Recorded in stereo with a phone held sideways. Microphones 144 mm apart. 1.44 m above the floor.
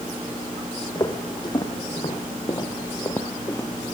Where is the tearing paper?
No tearing paper in this recording.